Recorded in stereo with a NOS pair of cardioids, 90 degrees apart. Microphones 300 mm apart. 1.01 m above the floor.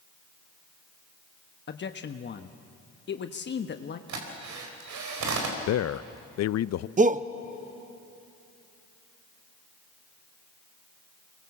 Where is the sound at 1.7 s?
40° left, 1.2 m.